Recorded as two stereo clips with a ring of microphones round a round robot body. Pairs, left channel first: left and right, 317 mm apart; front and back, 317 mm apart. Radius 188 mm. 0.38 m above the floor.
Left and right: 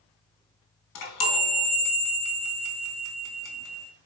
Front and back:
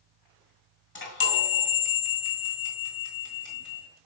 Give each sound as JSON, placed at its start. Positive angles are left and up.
{"t": 0.9, "sound": "a chime", "azimuth_deg": 50, "distance_m": 1.9}